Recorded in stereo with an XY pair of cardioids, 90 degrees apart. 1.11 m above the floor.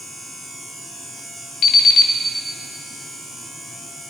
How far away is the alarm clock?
About 2.0 m.